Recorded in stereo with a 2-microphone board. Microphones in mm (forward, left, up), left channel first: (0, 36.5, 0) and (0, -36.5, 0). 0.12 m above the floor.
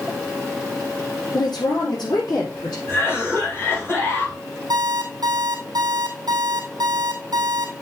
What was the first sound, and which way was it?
A woman speaking, 70° left (ahead or behind).